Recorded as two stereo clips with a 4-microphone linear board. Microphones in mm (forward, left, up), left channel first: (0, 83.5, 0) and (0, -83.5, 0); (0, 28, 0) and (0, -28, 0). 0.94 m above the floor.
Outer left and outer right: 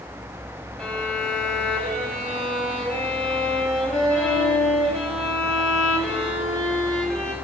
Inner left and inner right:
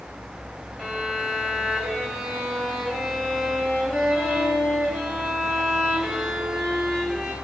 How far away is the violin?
About 6 m.